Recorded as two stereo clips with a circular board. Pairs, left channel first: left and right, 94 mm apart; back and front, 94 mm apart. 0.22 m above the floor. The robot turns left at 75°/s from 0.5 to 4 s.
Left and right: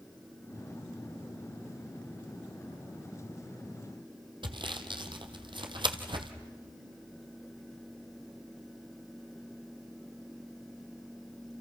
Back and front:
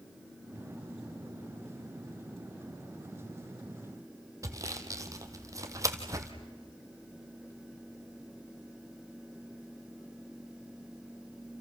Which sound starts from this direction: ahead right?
Sawing, at 4.4 s.